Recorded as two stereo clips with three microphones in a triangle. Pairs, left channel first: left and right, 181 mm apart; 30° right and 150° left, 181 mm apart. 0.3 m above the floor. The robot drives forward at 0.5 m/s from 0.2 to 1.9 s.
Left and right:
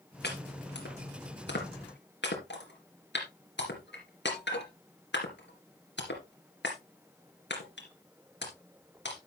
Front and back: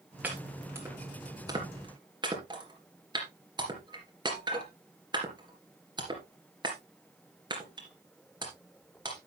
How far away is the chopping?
About 3 m.